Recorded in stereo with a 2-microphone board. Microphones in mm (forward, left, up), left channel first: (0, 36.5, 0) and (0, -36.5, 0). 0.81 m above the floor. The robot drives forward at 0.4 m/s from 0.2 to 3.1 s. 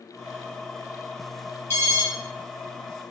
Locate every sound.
1.7 s an alarm: 35° left (ahead or behind), 3 m; by 2.0 s 30° left (ahead or behind), 3 m